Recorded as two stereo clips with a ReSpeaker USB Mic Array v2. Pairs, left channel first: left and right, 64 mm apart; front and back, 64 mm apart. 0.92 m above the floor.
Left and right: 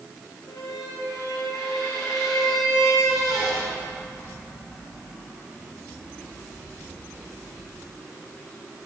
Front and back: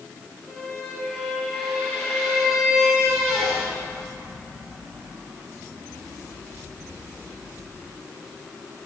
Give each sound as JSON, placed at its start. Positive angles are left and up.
{"t": 0.5, "sound": "a squeak", "azimuth_deg": 80, "distance_m": 5.0}